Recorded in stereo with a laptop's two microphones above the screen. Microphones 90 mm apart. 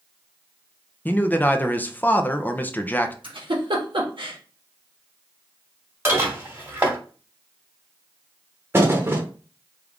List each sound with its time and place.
1.1 s a man speaking: 20° left (ahead or behind), 0.5 m
3.2 s a giggle: 70° right (ahead or behind), 1.3 m
6.0 s dishes clattering: 25° right (ahead or behind), 2 m
8.7 s a thud: 25° right (ahead or behind), 0.8 m